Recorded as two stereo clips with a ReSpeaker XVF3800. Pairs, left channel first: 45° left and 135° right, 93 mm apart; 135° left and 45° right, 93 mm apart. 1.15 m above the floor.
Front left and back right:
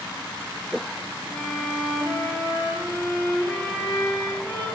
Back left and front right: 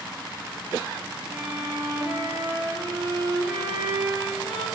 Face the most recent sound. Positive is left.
turn(degrees=-25)